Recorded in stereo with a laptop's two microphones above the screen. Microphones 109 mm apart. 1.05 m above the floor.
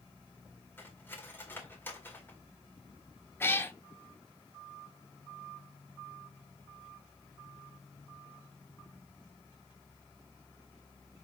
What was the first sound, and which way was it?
Cutlery clinking, 20° left (ahead or behind).